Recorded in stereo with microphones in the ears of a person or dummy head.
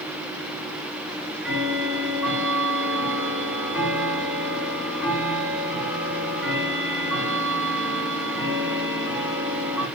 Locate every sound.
1.1 s ticking: 5° right (ahead or behind), 5.5 m